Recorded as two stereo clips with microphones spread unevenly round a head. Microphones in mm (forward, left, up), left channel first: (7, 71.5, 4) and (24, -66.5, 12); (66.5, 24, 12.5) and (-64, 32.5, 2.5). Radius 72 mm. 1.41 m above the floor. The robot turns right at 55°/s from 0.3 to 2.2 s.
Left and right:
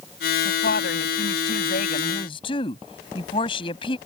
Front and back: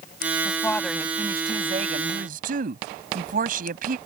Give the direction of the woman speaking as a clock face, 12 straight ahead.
10 o'clock.